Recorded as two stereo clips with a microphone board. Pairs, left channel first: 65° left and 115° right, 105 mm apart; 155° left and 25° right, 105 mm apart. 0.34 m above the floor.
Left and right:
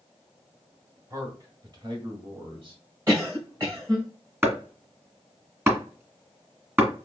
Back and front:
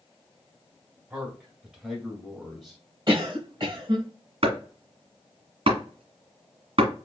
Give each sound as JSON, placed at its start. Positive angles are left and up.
{"t": 1.1, "sound": "a man speaking", "azimuth_deg": -95, "distance_m": 1.5}
{"t": 3.1, "sound": "a cough", "azimuth_deg": -55, "distance_m": 1.8}
{"t": 4.4, "sound": "chopping", "azimuth_deg": -45, "distance_m": 1.8}